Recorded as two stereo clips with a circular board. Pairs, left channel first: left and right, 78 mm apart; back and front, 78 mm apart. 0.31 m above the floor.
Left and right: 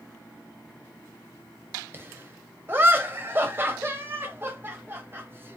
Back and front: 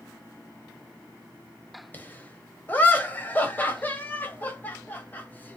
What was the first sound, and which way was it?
Laughter, 130° right.